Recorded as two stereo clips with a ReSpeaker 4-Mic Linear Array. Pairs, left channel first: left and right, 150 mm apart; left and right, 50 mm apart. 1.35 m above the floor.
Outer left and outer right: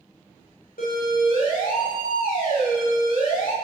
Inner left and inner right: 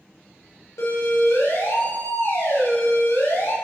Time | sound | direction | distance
0.8 | a siren | 80° left | 8 m